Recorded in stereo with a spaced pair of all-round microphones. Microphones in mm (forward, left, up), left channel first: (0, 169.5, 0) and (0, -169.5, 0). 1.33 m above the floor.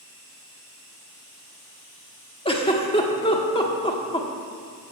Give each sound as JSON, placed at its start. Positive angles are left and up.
{"t": 2.5, "sound": "a giggle", "side_deg": 15, "distance_m": 1.4}